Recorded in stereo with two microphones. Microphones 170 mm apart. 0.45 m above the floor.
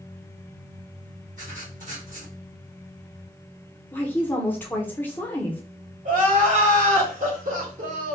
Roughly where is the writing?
Right.